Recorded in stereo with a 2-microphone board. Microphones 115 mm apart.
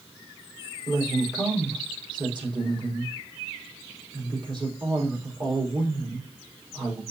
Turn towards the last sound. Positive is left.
turn(degrees=-40)  # may be behind; listen again after turning